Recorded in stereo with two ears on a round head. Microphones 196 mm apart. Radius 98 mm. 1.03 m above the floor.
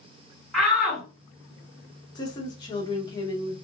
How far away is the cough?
I don't hear a cough.